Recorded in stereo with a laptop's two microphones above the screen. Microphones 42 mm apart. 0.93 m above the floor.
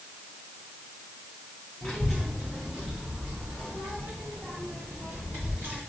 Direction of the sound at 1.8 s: 5° left (ahead or behind).